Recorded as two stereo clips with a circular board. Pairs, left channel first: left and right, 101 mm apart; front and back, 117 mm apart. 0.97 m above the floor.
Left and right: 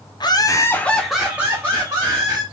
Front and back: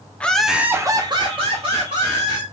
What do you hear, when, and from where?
0.2 s laughter: 75° left, 0.6 m; by 2.4 s 145° right, 1.2 m